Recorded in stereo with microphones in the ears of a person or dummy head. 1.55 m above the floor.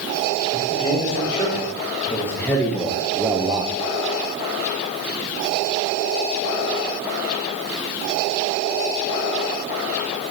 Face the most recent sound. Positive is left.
turn(degrees=-30)  # may be behind; listen again after turning